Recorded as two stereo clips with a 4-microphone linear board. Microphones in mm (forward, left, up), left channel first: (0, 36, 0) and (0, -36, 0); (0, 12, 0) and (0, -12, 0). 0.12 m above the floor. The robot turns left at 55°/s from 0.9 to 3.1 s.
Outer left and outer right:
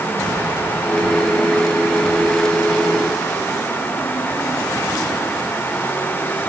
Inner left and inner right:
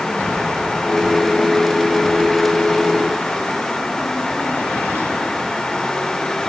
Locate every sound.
Only background noise.